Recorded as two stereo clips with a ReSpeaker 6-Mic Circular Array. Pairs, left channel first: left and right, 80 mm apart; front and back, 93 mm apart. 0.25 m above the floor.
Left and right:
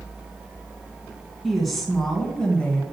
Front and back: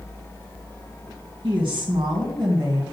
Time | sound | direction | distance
1.4 | a woman speaking | straight behind | 3 m